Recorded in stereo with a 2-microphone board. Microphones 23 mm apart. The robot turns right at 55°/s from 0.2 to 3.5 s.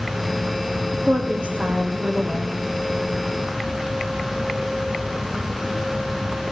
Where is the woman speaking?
125° right, 5.5 m; by 2.6 s 35° right, 5.5 m.